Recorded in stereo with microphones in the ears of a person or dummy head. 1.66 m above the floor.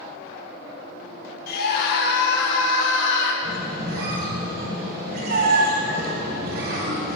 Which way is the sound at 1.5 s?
55° left (ahead or behind).